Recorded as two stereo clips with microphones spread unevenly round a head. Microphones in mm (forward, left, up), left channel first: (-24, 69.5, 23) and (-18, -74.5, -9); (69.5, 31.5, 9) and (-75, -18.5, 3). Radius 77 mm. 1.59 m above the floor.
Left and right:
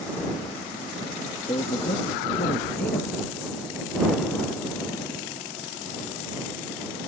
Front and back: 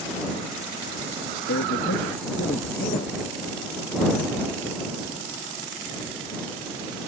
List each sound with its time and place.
1.5 s a man speaking: 30° left; by 3.1 s 55° left